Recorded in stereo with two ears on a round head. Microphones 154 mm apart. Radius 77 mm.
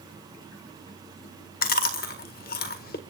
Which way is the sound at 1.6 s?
55° left (ahead or behind).